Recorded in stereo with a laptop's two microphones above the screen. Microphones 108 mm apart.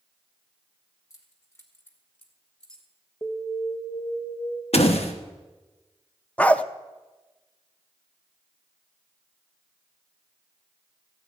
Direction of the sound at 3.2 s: 30° left (ahead or behind).